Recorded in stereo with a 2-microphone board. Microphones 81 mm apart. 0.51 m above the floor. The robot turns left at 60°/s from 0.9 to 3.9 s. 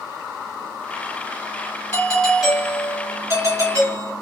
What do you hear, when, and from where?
1.9 s a doorbell: 30° left, 2 m; by 4.1 s 85° right, 2 m